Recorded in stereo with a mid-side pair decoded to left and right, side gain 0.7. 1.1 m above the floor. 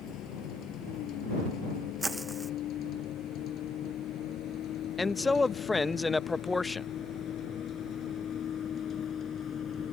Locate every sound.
0.0 s a vehicle: 50° left; by 9.9 s 30° left
2.0 s footsteps: 10° right
5.0 s a man speaking: 10° left